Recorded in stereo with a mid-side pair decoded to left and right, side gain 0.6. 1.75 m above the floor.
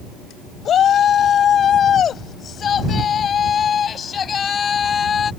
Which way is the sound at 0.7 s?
45° left.